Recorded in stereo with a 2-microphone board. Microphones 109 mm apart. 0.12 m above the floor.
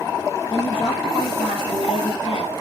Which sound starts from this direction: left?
A woman speaking, at 0.5 s.